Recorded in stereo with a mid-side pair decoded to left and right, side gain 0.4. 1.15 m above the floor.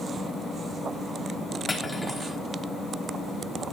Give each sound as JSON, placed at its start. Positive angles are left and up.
{"t": 1.7, "sound": "cutlery clinking", "azimuth_deg": 20, "distance_m": 3.5}